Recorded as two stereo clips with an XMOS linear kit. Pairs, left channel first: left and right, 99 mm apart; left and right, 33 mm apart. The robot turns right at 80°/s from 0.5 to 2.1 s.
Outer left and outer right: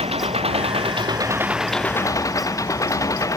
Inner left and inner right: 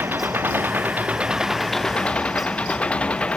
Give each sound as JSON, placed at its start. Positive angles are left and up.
{"t": 0.0, "sound": "an engine running", "azimuth_deg": -95}